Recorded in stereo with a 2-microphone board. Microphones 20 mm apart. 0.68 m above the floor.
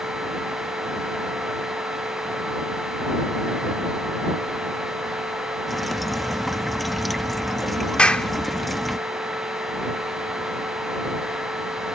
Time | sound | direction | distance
5.7 | dripping | centre (ahead or behind) | ?
8.0 | a clap | 70° left (ahead or behind) | ?